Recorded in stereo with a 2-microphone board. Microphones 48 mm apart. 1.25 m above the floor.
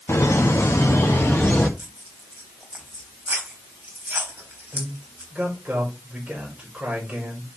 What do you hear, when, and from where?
0.1 s laughter: 70° left (ahead or behind), 1.8 m; by 1.7 s 45° left (ahead or behind), 1.4 m
1.8 s tearing paper: 35° right (ahead or behind), 4 m
4.7 s a man speaking: 30° right (ahead or behind), 5 m